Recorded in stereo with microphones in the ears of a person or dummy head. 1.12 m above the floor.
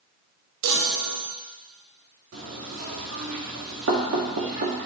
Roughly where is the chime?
Right.